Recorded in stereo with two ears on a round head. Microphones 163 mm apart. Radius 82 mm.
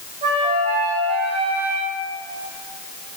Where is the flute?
35° right (ahead or behind), 5 m.